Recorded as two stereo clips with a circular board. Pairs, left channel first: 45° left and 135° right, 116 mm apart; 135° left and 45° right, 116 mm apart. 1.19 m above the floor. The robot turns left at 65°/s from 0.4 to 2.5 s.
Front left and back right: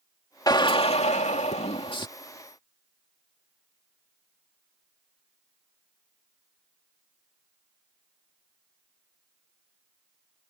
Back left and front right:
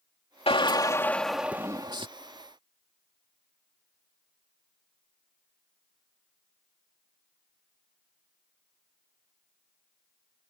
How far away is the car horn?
I don't hear a car horn.